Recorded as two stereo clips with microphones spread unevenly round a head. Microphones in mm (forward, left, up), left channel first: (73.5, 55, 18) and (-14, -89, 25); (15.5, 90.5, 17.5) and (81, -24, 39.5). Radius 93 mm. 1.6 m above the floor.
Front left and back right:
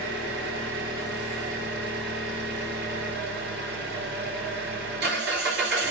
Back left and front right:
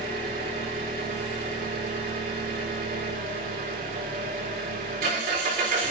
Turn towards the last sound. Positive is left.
turn(degrees=-105)